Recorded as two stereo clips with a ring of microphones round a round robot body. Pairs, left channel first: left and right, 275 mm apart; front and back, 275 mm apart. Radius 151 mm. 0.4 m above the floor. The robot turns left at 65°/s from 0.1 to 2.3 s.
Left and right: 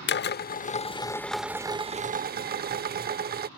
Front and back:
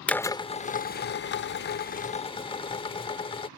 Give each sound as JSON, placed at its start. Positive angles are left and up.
{"t": 0.1, "sound": "a drill", "azimuth_deg": 85}